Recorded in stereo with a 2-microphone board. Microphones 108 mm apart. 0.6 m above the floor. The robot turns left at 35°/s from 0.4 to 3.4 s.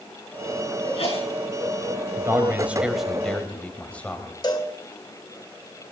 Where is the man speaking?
150° right, 3 m; by 4.3 s 165° left, 3 m.